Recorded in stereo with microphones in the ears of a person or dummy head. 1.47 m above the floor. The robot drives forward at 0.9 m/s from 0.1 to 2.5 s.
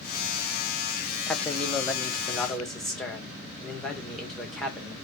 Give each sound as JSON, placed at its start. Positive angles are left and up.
{"t": 1.3, "sound": "a man speaking", "side_deg": 10, "distance_m": 0.8}